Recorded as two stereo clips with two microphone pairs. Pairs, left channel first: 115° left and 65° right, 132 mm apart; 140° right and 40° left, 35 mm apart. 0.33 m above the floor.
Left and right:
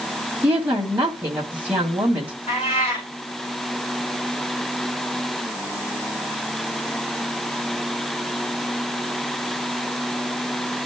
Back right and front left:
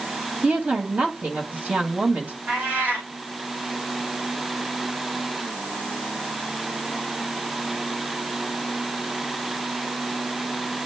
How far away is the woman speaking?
About 1.9 m.